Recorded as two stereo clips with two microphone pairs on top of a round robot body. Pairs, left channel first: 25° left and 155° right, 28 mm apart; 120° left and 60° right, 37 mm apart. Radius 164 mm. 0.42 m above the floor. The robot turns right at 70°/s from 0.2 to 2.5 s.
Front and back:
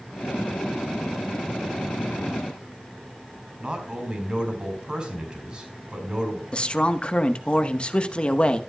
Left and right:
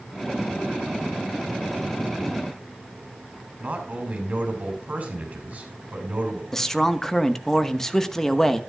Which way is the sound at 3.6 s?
100° right.